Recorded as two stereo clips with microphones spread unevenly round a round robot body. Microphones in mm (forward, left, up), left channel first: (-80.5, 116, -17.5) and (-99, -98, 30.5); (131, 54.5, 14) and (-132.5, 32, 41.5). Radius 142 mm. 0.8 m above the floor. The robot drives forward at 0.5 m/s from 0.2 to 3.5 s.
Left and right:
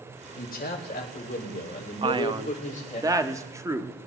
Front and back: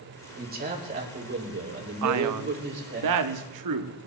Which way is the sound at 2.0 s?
170° right.